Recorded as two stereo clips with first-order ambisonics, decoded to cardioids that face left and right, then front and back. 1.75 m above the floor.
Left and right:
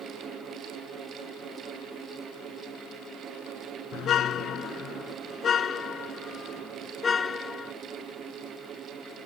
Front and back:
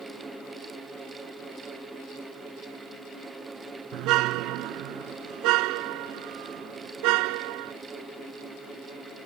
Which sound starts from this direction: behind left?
A car horn, at 3.9 s.